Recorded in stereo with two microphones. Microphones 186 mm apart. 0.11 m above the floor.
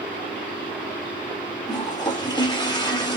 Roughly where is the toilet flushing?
Left.